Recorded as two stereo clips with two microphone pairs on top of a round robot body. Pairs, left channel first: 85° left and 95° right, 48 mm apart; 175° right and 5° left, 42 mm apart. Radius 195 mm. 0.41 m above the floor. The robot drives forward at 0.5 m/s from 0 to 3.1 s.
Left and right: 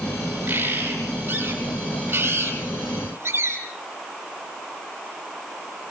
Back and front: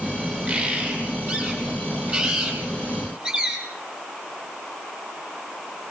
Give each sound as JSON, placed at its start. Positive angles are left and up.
{"t": 0.5, "sound": "a bird", "azimuth_deg": -45, "distance_m": 7.0}